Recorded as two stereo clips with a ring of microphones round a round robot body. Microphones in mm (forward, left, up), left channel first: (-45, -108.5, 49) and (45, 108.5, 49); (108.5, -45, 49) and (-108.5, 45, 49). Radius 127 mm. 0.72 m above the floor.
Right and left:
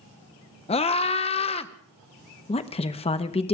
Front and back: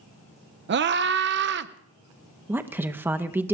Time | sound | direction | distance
0.7 | a scream | 175° right | 0.8 m
2.5 | a woman speaking | 130° right | 0.7 m